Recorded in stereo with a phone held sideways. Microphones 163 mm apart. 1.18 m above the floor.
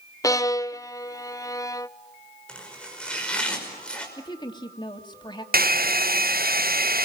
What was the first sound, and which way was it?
A violin, 20° left (ahead or behind).